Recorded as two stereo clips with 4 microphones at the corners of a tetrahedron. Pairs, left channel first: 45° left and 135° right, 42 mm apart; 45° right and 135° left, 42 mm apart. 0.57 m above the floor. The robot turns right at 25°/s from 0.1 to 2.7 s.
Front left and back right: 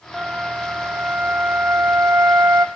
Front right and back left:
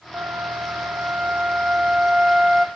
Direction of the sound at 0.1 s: 155° left.